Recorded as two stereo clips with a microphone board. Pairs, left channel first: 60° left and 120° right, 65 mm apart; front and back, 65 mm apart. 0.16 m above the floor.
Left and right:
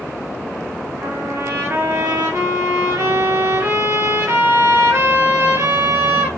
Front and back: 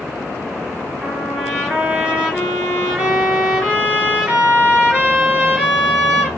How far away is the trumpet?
About 2.5 m.